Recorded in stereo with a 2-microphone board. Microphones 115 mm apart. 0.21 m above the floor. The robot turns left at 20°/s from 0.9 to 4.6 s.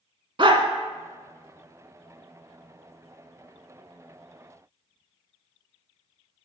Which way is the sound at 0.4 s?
50° right (ahead or behind).